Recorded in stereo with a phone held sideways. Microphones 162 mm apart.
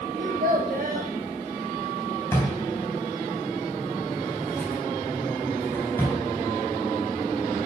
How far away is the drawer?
About 2.5 m.